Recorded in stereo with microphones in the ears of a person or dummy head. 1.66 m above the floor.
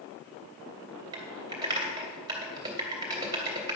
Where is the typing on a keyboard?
20° right (ahead or behind), 3 m.